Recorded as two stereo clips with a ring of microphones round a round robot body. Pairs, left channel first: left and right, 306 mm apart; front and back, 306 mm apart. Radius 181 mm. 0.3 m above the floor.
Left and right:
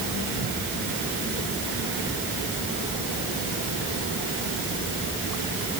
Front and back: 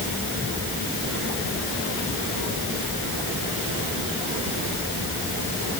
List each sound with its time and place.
Only background noise.